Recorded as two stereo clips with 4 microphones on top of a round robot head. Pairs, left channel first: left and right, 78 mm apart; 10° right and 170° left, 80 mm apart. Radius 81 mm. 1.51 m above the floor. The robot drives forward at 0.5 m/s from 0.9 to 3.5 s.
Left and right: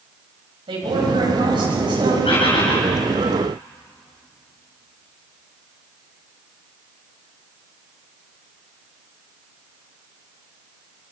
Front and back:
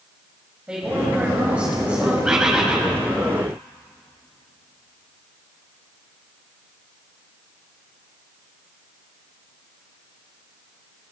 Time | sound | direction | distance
0.7 | a woman speaking | 105° right | 8.5 m
2.2 | a bird | 90° left | 6.5 m